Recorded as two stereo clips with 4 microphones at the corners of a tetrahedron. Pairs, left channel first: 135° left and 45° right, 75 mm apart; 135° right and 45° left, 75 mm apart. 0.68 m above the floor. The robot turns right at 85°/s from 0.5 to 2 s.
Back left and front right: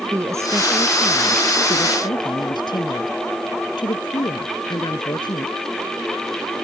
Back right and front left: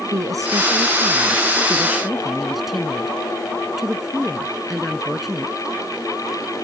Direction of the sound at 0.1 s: 5° left.